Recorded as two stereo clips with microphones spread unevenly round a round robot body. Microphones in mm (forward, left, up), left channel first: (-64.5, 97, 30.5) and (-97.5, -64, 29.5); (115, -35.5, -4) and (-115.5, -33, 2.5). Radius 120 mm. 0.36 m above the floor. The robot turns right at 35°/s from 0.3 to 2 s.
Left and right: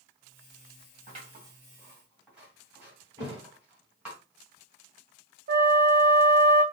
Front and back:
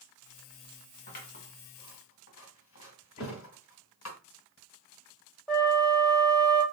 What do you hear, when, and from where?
1.1 s scissors: 50° right, 1.8 m; by 4.2 s 15° right, 1.8 m
3.2 s a thud: 30° right, 1.9 m
5.5 s a flute: 85° right, 1.1 m